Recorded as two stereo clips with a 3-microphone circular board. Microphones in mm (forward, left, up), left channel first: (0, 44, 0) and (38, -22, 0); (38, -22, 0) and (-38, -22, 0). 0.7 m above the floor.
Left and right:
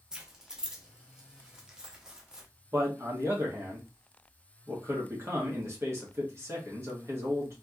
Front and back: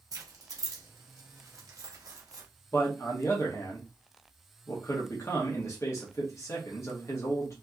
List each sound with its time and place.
0.1 s keys jangling: 140° right, 0.7 m
2.7 s a man speaking: 25° right, 1.2 m